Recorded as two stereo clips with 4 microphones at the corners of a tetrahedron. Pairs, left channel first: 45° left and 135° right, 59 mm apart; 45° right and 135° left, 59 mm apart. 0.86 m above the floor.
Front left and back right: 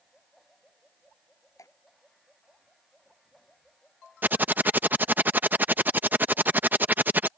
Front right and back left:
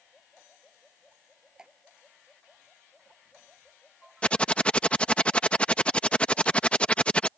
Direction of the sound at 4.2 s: 100° right.